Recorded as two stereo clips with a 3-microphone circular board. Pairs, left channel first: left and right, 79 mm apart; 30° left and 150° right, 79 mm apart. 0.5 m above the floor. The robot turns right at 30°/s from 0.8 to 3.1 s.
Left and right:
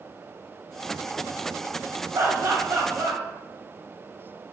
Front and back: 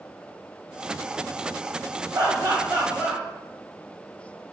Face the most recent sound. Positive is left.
turn(degrees=-95)